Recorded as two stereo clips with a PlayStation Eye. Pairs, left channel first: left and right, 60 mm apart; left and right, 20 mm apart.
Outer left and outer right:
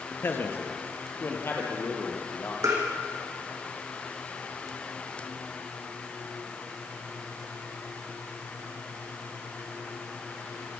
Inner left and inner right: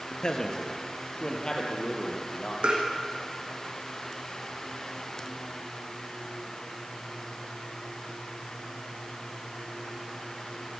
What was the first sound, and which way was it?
A man speaking, 35° left (ahead or behind).